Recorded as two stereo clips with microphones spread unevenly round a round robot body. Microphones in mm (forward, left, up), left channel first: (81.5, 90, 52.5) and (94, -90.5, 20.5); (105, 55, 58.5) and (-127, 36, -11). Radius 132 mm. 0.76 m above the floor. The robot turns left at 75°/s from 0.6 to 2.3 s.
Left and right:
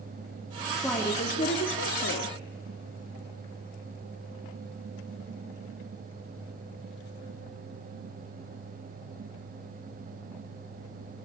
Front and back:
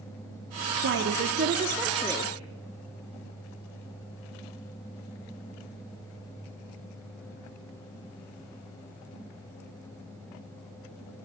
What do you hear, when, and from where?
0.8 s a woman speaking: 170° right, 1.5 m; by 2.4 s 80° left, 1.5 m